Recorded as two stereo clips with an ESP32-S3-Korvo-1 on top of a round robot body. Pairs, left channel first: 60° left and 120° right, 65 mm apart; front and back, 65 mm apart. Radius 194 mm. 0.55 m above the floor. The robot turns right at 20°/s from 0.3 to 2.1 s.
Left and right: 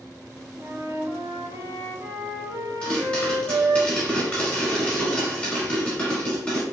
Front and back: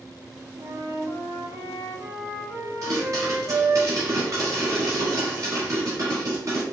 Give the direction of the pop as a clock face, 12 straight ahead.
8 o'clock.